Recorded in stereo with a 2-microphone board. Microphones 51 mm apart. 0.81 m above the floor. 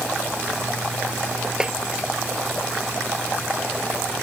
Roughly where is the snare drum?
Centre.